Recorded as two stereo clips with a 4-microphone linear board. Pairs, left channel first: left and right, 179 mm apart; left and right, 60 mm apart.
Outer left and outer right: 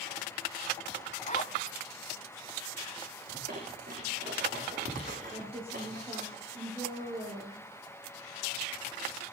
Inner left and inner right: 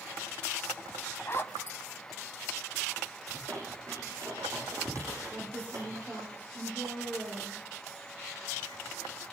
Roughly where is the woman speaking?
Right.